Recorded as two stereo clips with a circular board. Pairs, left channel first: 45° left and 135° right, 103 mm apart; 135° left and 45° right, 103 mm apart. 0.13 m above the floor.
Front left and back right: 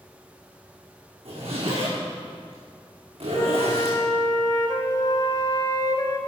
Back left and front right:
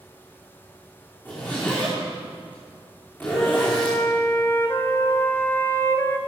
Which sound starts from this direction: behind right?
A zipper, at 1.2 s.